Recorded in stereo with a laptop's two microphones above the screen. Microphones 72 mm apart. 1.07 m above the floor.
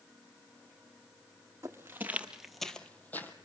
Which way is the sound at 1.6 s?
40° right (ahead or behind).